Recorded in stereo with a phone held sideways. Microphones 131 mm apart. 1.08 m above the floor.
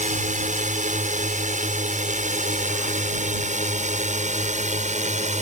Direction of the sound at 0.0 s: 70° right (ahead or behind).